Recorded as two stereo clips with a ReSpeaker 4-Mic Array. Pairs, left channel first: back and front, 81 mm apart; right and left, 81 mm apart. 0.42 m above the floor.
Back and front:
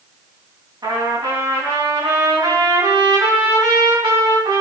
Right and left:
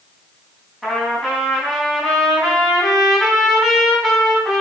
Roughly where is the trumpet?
Ahead.